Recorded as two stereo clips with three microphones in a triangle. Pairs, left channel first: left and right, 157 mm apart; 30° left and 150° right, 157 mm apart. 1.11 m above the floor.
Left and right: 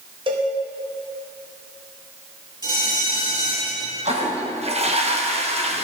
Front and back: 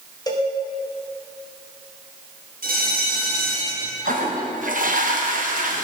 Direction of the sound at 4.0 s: 135° right.